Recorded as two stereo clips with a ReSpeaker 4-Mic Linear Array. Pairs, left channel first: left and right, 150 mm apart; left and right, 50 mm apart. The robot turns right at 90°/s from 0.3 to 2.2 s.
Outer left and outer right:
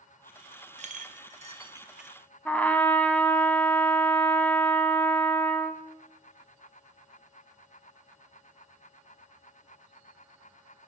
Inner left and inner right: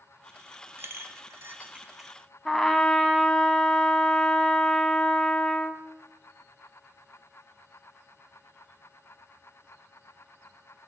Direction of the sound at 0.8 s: 50° right (ahead or behind).